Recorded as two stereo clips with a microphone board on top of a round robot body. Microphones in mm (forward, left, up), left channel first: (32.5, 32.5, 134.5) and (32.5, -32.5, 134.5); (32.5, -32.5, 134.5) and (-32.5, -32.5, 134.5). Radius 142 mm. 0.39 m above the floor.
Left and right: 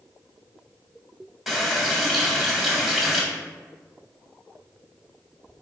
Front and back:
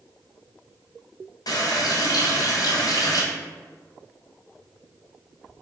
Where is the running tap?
5° right, 1.2 m.